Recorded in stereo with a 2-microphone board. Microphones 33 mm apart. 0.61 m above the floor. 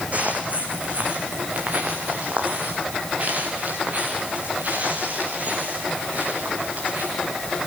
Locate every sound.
0.1 s footsteps: 45° right (ahead or behind), 2.5 m; by 7.1 s 50° right (ahead or behind), 9.5 m